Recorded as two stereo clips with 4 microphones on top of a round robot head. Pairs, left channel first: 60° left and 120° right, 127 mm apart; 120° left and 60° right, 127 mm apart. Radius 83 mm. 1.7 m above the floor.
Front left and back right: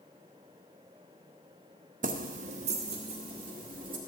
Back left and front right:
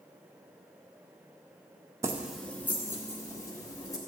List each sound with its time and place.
2.0 s keys jangling: 120° right, 0.7 m; by 4.0 s 175° right, 3 m